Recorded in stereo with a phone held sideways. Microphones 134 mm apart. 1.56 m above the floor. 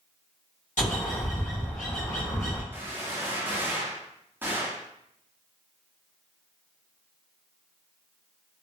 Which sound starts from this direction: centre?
A gunshot, at 2.7 s.